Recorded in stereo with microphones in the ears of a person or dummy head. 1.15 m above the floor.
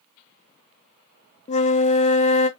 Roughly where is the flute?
Left.